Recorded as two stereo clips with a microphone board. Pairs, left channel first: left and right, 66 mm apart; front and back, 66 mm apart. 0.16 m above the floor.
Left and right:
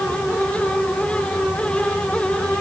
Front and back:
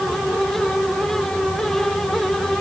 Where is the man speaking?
No man speaking in this recording.